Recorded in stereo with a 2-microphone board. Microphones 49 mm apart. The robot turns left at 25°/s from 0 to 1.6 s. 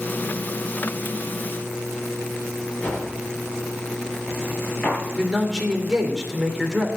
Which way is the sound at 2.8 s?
35° left (ahead or behind).